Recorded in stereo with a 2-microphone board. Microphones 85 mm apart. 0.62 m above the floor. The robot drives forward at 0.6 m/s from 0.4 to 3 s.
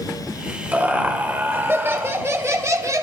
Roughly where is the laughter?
Right.